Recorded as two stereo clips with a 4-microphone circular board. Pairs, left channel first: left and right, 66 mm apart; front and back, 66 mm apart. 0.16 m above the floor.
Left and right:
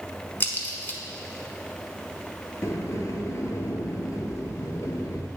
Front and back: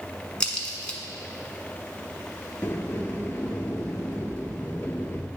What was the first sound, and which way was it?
A crack, 65° left.